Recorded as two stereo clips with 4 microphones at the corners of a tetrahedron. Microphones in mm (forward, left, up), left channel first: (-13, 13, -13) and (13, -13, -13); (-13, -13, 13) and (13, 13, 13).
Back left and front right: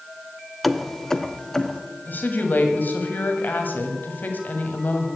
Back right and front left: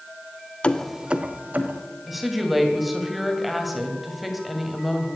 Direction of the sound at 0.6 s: 135° right.